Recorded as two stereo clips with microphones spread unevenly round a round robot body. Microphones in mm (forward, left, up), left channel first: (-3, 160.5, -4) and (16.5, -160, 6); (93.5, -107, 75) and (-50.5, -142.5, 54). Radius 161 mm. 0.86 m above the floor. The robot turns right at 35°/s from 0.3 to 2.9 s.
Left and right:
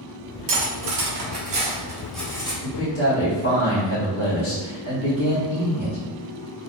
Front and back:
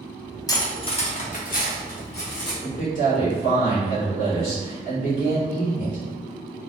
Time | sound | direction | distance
0.5 | cutlery clinking | 55° right | 0.9 m
2.6 | a man speaking | 40° left | 1.8 m